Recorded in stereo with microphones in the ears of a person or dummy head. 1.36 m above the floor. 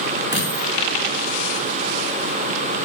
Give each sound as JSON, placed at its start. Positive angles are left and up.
{"t": 0.3, "sound": "a dropped coin", "side_deg": -20, "distance_m": 9.5}